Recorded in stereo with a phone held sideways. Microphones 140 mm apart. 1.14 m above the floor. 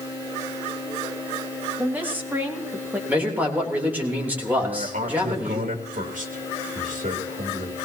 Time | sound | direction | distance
1.8 | a woman speaking | 10° right (ahead or behind) | 2 m
3.1 | a man speaking | 10° right (ahead or behind) | 3.5 m
4.6 | a man speaking | 65° right (ahead or behind) | 2.5 m